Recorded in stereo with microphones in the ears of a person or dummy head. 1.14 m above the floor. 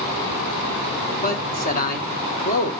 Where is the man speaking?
40° left (ahead or behind), 1.9 m.